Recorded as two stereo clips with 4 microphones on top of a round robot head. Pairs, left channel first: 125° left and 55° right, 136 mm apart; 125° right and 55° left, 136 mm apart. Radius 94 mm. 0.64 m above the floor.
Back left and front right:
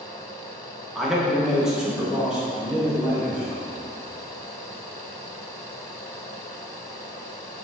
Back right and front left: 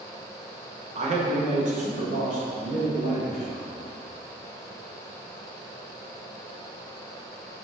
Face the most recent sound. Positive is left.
turn(degrees=30)